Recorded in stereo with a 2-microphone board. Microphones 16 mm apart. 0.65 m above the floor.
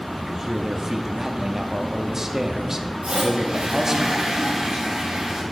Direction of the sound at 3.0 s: 75° right (ahead or behind).